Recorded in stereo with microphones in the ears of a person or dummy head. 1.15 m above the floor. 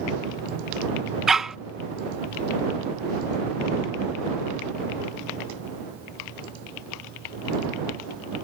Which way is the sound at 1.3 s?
Centre (ahead or behind).